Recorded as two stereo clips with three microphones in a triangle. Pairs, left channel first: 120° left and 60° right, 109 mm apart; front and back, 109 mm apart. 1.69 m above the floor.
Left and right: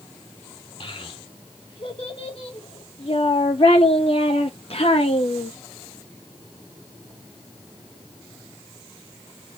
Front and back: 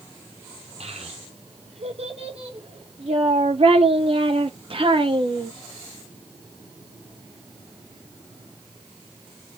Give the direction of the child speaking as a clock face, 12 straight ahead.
7 o'clock.